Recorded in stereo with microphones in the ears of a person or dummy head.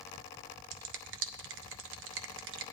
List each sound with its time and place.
0.7 s a finger snap: 65° right (ahead or behind), 0.6 m